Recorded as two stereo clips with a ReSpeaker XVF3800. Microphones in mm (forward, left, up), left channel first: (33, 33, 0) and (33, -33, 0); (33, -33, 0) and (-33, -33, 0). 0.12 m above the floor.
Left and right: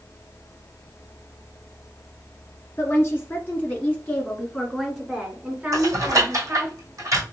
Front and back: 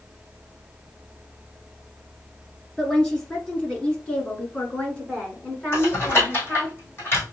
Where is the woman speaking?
75° left, 1.9 m; by 6.7 s 65° right, 1.8 m.